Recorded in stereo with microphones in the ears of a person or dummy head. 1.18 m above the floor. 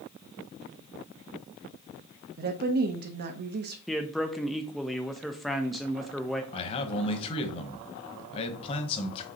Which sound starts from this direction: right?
A woman speaking, at 2.4 s.